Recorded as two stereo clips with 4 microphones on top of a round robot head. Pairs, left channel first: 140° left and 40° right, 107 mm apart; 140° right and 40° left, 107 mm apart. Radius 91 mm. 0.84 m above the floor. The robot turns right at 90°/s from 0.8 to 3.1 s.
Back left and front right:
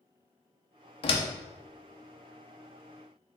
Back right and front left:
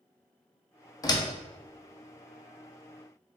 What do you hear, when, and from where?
1.0 s a door slam: 165° left, 0.7 m; by 1.3 s 170° right, 0.7 m